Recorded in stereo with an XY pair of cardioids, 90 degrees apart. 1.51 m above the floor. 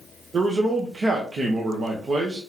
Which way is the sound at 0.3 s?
45° right.